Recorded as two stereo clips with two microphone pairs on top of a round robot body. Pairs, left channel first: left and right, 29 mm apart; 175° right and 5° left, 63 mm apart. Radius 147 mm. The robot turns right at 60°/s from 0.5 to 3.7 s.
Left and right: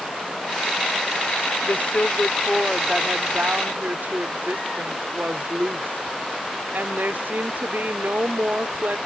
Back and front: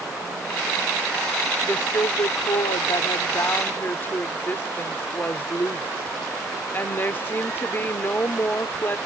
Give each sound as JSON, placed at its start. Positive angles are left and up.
{"t": 1.6, "sound": "a woman speaking", "azimuth_deg": 120}